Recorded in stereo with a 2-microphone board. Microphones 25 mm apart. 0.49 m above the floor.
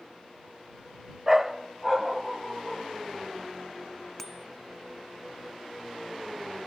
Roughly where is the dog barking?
Centre.